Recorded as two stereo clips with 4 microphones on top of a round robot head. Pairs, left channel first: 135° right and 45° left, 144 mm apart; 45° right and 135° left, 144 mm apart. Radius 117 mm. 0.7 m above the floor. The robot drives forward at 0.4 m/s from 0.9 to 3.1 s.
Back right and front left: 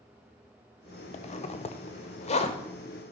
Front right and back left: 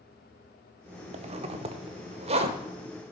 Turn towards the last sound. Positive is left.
turn(degrees=180)